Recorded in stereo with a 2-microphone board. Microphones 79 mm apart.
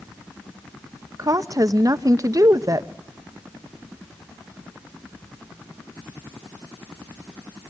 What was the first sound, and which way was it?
A woman speaking, 45° right (ahead or behind).